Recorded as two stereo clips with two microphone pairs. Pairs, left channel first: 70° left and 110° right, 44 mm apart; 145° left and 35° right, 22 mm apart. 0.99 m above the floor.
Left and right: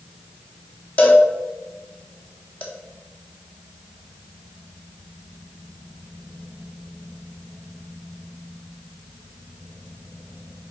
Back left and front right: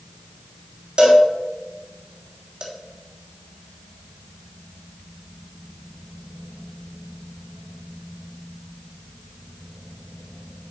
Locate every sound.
1.0 s a cowbell: 20° left, 1.6 m